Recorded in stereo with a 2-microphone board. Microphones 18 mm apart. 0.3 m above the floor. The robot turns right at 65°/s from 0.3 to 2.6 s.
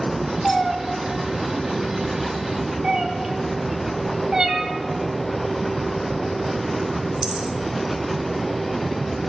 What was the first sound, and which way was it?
A cat meowing, 10° left (ahead or behind).